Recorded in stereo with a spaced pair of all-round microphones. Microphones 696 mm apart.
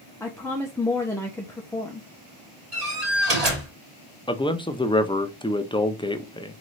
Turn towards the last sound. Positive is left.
turn(degrees=10)  # may be behind; listen again after turning